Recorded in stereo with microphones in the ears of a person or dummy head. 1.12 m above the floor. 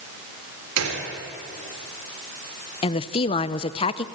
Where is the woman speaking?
25° left (ahead or behind), 0.7 m.